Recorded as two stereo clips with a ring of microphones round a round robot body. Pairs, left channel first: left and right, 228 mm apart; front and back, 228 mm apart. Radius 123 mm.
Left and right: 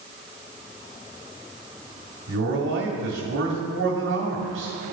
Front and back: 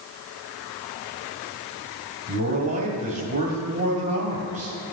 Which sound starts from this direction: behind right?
A man speaking, at 2.3 s.